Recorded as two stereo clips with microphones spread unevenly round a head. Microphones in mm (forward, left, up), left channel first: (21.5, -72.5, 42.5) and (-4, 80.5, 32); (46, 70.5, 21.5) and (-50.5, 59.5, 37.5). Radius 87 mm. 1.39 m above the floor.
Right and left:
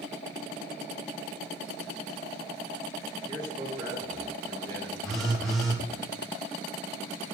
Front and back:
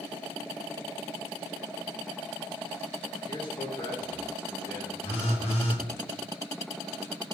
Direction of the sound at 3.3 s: 35° left.